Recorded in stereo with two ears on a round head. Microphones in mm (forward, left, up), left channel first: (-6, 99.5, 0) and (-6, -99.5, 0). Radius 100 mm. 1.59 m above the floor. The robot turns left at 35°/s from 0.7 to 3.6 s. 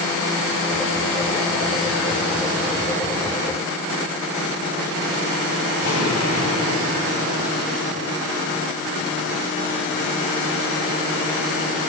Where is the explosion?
85° left, 8 m.